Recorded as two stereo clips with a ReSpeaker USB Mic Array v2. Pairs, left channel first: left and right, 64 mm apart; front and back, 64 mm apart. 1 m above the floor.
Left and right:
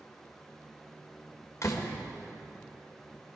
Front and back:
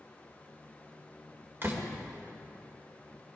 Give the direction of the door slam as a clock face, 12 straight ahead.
8 o'clock.